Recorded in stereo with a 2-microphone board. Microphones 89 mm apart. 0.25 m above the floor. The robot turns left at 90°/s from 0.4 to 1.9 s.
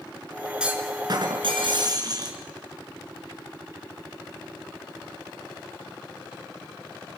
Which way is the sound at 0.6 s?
10° right.